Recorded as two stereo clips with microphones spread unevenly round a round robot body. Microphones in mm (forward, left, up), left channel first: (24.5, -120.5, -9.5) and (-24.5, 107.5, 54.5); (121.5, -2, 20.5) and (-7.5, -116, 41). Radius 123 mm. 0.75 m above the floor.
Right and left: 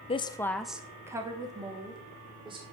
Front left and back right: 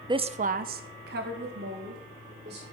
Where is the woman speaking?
75° right, 0.5 m; by 2.6 s 175° left, 2 m.